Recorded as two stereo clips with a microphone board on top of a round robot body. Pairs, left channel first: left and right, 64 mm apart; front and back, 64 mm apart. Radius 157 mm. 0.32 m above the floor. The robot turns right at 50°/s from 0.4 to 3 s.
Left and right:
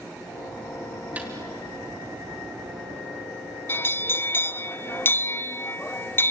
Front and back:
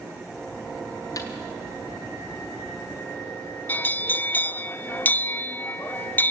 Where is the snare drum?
25° right, 3 m; by 1.3 s 15° right, 3 m.